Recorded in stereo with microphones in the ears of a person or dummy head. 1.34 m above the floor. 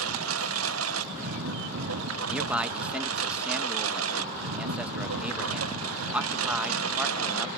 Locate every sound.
0.0 s a lawn mower: 80° right
2.3 s a man speaking: 10° right (ahead or behind)